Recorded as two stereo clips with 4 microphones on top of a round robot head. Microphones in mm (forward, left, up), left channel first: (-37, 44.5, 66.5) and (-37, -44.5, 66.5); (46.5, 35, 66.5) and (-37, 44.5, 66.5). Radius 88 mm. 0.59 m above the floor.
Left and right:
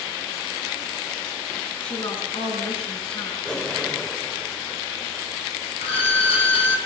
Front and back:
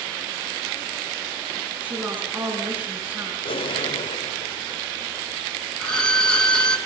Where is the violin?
75° left, 4 m.